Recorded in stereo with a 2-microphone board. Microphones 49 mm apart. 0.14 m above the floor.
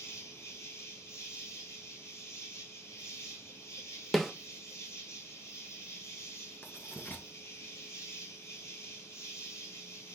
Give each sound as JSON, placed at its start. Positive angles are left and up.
{"t": 0.0, "sound": "an insect", "side_deg": 65, "distance_m": 2.0}
{"t": 4.1, "sound": "a snare drum", "side_deg": 5, "distance_m": 0.7}
{"t": 6.6, "sound": "writing", "side_deg": 40, "distance_m": 1.1}